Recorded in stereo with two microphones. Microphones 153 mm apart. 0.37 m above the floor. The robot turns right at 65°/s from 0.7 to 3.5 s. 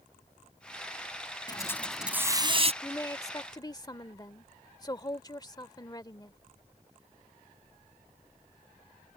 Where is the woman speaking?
15° left (ahead or behind); by 6.4 s 25° left (ahead or behind).